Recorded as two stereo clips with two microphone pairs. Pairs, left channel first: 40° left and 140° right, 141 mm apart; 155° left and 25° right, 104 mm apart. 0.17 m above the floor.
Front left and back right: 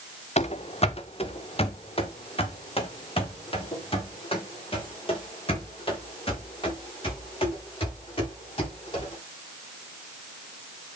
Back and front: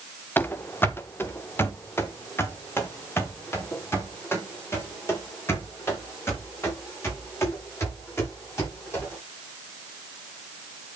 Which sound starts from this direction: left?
Running footsteps, at 0.4 s.